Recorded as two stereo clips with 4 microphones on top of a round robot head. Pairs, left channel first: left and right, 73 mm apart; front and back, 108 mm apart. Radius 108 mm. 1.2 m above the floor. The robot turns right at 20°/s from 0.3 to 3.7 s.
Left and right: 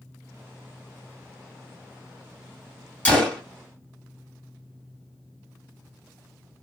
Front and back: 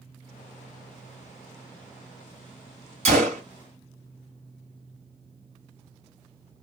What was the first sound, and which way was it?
A gunshot, 160° left.